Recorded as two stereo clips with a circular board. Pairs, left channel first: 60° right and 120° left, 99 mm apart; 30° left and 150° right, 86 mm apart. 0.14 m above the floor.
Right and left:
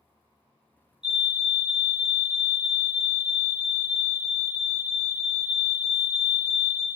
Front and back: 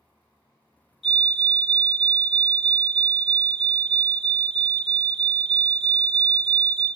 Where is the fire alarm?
60° right, 3.5 m.